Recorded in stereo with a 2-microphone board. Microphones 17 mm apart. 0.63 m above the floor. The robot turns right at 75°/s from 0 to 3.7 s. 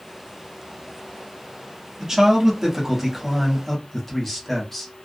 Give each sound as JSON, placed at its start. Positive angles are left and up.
{"t": 2.0, "sound": "a man speaking", "azimuth_deg": -95, "distance_m": 1.0}